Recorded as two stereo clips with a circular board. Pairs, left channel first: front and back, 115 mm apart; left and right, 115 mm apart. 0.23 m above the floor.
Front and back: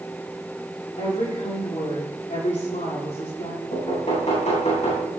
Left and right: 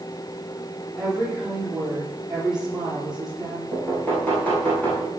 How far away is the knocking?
About 8 m.